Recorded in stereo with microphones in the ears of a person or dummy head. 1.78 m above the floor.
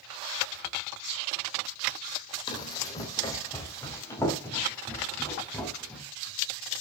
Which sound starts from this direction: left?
Running footsteps, at 2.5 s.